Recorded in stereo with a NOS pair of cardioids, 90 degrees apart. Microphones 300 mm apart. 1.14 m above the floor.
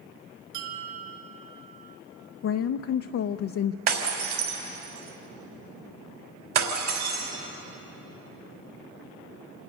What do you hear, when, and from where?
0.5 s a bell: 45° right, 3 m
2.4 s a woman speaking: 55° left, 0.6 m
3.9 s breaking glass: 60° right, 3.5 m